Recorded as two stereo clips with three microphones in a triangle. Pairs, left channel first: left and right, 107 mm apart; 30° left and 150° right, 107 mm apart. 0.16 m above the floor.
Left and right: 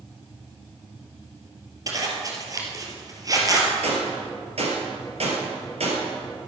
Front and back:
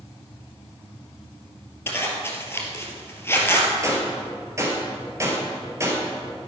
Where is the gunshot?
90° right, 3 m.